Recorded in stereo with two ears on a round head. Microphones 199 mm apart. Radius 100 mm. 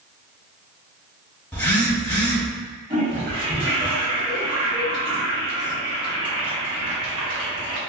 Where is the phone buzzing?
10° left (ahead or behind), 0.8 m.